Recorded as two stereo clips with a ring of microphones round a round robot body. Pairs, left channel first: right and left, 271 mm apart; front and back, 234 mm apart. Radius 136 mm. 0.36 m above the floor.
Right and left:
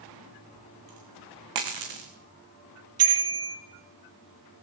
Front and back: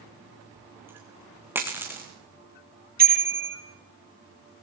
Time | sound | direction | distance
0.6 | a dropped coin | 100° left | 4 m
3.0 | a bicycle bell | 130° left | 7.5 m